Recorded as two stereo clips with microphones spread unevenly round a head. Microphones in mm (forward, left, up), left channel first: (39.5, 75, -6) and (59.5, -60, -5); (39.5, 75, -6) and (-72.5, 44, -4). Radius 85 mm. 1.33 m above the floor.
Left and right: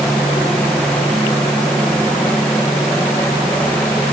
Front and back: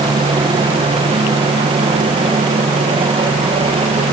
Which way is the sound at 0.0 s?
Straight behind.